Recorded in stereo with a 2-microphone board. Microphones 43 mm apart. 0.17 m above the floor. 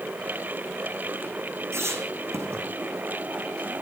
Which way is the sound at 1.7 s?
70° right (ahead or behind).